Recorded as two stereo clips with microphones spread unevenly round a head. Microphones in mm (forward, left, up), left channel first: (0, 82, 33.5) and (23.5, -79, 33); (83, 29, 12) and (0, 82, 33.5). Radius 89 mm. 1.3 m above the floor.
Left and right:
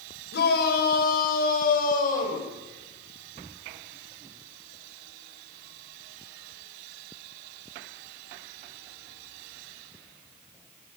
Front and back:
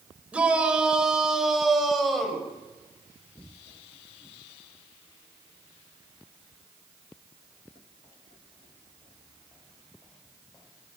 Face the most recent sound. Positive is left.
turn(degrees=55)